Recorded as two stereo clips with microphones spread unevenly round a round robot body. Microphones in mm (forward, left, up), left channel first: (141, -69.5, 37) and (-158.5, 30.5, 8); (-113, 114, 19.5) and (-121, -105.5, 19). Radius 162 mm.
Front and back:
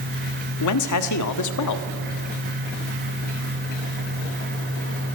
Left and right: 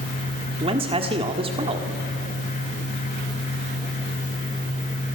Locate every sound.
0.6 s a man speaking: 30° right, 1.5 m